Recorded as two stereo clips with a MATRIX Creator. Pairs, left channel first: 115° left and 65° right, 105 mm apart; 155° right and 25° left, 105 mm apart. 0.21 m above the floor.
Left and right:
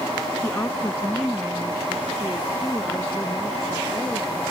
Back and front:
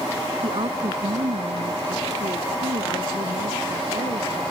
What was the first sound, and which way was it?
A woman speaking, 50° left.